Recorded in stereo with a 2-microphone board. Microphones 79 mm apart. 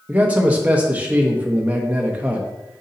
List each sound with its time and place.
0.1 s a man speaking: 20° right (ahead or behind), 1.3 m